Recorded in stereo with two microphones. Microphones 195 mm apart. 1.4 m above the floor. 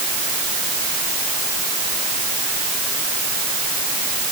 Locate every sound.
Only background noise.